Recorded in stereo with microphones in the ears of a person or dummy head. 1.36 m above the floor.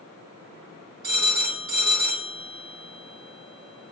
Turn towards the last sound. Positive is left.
turn(degrees=-55)  # may be behind; listen again after turning